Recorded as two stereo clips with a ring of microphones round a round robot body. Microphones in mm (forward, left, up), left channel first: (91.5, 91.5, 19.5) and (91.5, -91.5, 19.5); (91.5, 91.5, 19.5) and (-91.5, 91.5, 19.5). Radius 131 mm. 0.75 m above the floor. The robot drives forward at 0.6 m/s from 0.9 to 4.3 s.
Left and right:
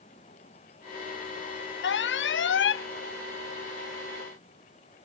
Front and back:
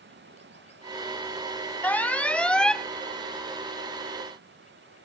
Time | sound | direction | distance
0.0 | running water | 160° left | ?
1.8 | an alarm | 80° left | ?